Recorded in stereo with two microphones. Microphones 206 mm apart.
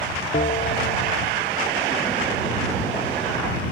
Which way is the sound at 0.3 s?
40° left (ahead or behind).